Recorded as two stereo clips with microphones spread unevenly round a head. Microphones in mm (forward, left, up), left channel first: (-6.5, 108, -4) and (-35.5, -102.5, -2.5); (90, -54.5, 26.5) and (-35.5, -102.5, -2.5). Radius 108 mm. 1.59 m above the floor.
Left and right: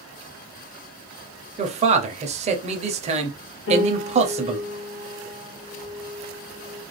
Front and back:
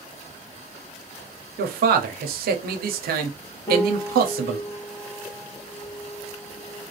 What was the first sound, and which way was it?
A man speaking, 160° right.